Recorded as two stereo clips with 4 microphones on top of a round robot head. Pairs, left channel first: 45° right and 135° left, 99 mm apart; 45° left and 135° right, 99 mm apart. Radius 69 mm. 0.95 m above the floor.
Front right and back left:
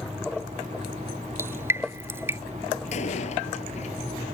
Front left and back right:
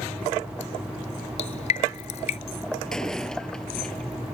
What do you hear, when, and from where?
1.4 s dripping: 70° left
2.9 s a door slam: 40° right